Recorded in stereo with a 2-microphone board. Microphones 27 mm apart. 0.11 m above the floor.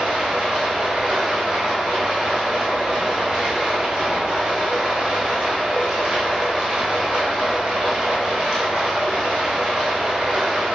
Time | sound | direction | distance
0.0 | running water | 45° right (ahead or behind) | 1.7 m